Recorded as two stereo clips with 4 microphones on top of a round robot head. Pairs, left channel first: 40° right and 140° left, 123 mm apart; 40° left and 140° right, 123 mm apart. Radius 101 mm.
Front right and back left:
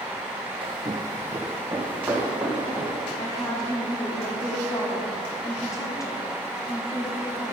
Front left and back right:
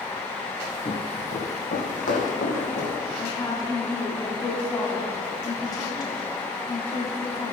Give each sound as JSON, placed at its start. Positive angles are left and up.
{"t": 0.6, "sound": "footsteps", "azimuth_deg": 95, "distance_m": 0.8}
{"t": 3.2, "sound": "a woman speaking", "azimuth_deg": 5, "distance_m": 1.5}